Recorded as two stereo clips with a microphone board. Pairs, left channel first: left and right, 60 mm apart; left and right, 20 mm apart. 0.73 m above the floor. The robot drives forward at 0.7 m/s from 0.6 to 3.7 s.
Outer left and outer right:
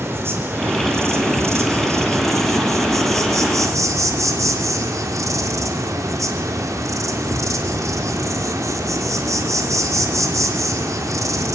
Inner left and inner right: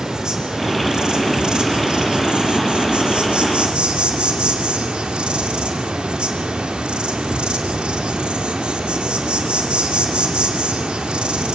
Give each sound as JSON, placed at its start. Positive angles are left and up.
{"t": 0.0, "sound": "an insect", "side_deg": -45, "distance_m": 3.5}